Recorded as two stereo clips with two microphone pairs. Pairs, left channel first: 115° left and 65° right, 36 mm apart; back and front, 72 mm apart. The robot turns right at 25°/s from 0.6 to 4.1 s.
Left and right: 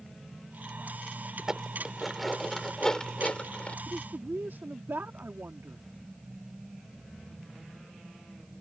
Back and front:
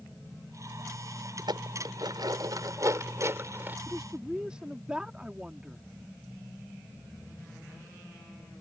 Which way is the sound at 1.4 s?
5° left.